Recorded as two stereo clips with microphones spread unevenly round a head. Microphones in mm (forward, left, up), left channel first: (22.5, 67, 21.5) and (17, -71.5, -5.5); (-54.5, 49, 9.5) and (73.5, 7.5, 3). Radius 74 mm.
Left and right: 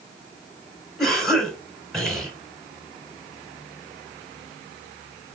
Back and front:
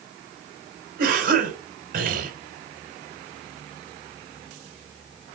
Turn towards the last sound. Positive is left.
turn(degrees=0)